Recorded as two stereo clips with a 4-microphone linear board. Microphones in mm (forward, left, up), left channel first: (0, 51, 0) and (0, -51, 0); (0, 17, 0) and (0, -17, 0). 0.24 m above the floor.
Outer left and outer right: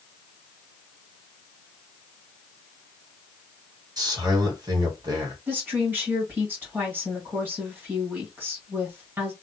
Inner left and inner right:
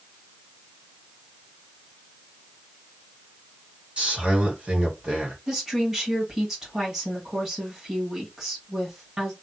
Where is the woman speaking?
20° right (ahead or behind), 1.7 m.